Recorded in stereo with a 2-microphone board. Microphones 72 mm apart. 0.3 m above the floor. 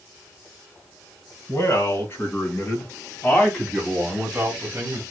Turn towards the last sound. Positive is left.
turn(degrees=-25)  # may be behind; listen again after turning